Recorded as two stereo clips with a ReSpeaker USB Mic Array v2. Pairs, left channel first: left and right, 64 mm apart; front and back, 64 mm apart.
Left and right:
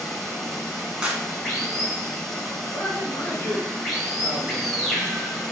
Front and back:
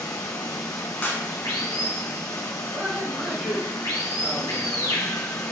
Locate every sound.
0.0 s running water: 5° right, 1.1 m
1.0 s a clap: 35° right, 0.9 m
2.7 s a man speaking: 120° left, 1.2 m